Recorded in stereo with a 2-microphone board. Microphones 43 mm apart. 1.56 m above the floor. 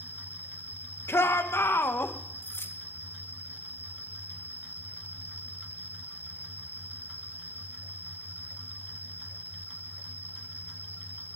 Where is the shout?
80° left, 1.7 m.